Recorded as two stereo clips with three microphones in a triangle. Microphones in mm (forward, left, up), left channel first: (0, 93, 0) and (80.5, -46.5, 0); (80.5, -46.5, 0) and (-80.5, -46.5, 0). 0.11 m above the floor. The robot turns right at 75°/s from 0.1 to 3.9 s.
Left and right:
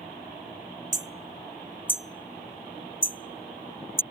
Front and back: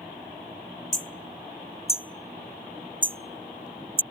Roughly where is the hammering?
Ahead right.